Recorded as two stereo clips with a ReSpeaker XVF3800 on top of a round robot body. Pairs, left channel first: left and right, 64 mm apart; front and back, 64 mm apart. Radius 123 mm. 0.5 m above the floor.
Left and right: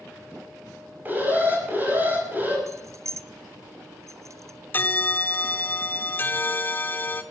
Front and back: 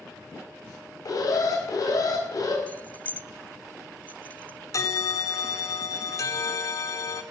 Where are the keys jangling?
65° right, 0.6 m.